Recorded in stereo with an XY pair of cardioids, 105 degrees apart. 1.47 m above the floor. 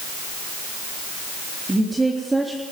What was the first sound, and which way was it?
A woman speaking, 15° right.